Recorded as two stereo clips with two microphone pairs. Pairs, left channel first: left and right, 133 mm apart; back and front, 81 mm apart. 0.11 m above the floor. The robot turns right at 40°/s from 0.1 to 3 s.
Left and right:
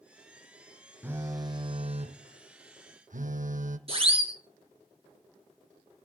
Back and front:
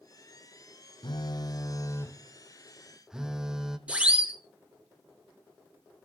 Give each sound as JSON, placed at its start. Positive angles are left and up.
{"t": 1.0, "sound": "a phone buzzing", "azimuth_deg": -160, "distance_m": 1.2}
{"t": 3.9, "sound": "a siren", "azimuth_deg": -70, "distance_m": 2.5}